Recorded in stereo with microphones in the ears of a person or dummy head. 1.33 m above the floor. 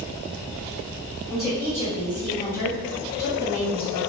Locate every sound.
1.3 s a woman speaking: 25° left (ahead or behind), 1.7 m; by 4.0 s 80° left, 2.5 m